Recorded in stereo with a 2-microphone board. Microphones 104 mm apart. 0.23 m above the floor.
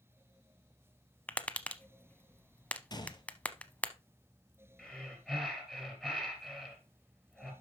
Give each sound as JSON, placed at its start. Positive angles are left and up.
{"t": 1.3, "sound": "tapping", "side_deg": 15, "distance_m": 0.6}
{"t": 2.9, "sound": "a gunshot", "side_deg": 40, "distance_m": 1.1}
{"t": 4.8, "sound": "breathing", "side_deg": 0, "distance_m": 3.0}